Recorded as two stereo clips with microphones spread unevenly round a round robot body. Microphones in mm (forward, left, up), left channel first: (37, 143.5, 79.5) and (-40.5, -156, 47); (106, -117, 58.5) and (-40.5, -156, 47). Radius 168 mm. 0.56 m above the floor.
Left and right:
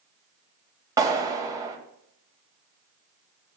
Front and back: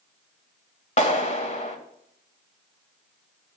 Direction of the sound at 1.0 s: 25° right.